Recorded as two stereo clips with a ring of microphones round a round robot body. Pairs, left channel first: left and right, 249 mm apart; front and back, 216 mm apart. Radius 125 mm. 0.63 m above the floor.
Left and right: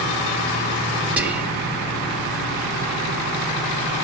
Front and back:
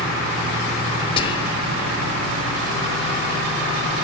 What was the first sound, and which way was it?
Whispering, 15° right.